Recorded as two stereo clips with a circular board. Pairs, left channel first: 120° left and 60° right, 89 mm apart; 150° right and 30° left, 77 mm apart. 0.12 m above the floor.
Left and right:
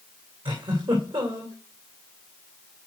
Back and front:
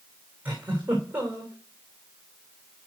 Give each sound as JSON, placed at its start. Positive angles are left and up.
{"t": 0.5, "sound": "a giggle", "azimuth_deg": -40, "distance_m": 3.0}